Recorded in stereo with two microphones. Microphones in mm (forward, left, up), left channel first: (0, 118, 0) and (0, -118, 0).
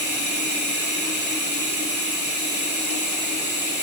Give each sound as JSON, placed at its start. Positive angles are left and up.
{"t": 0.0, "sound": "running water", "side_deg": -45, "distance_m": 1.0}